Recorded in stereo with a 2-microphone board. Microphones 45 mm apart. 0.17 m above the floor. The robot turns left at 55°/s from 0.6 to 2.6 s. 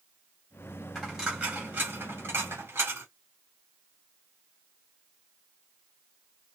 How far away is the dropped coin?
About 3 m.